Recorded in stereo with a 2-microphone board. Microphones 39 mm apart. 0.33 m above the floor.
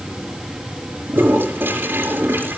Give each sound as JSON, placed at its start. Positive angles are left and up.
{"t": 1.1, "sound": "a toilet flushing", "side_deg": -70, "distance_m": 4.0}